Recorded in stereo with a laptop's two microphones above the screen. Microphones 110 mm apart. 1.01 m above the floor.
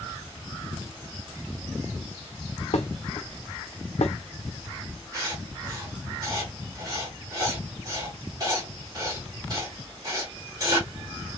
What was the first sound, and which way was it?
Dishes clattering, 75° left (ahead or behind).